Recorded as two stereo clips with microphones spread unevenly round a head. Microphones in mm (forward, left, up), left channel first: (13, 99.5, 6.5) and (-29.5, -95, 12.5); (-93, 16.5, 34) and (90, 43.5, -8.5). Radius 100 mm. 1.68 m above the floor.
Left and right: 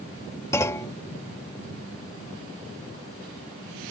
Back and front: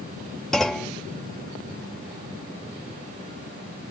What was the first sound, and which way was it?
A clunk, 140° left.